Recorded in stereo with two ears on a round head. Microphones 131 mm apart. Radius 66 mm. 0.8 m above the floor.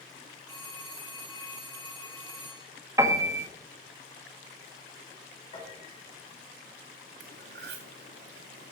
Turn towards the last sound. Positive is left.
turn(degrees=-80)